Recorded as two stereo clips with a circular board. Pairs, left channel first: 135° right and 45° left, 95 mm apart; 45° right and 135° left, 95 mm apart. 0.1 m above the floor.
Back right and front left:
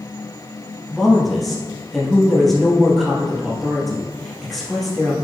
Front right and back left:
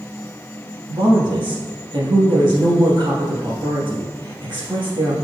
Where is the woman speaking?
135° left, 2.5 m.